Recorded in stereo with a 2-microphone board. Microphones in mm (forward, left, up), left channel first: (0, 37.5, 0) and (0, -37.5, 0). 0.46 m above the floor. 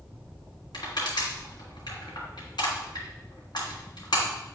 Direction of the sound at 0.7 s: 75° left (ahead or behind).